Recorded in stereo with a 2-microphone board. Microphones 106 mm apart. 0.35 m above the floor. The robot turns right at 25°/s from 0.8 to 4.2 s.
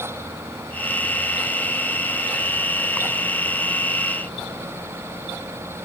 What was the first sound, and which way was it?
Only background noise.